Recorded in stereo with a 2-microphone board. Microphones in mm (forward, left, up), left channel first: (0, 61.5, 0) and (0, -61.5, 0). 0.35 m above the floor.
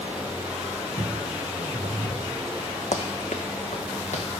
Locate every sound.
1.0 s footsteps: 75° right (ahead or behind), 1.6 m
2.9 s running footsteps: 65° left (ahead or behind), 0.9 m; by 4.2 s 70° left (ahead or behind), 1.6 m